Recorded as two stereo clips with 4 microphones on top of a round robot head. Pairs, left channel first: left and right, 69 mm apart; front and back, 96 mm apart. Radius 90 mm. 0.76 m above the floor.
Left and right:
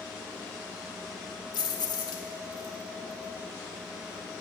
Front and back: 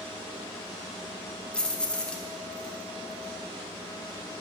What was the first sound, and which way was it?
Keys jangling, 80° left.